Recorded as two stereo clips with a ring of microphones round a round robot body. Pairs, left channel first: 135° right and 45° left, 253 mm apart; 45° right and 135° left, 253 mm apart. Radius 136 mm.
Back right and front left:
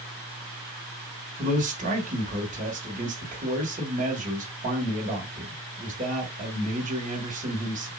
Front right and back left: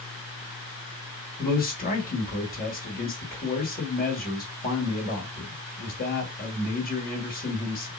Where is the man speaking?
5° right, 2 m.